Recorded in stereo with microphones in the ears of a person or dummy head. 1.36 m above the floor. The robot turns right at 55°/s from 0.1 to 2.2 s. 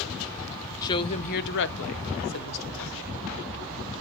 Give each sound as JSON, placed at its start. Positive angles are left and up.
{"t": 0.8, "sound": "a woman speaking", "azimuth_deg": 20, "distance_m": 0.8}